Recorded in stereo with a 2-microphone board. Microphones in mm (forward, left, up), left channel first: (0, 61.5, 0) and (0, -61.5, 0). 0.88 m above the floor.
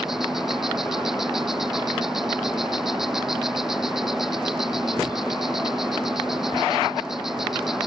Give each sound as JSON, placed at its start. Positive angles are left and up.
{"t": 0.0, "sound": "an insect", "side_deg": -5}